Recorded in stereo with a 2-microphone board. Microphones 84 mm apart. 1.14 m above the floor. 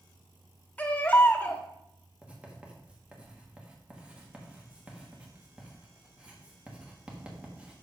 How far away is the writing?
About 1.6 m.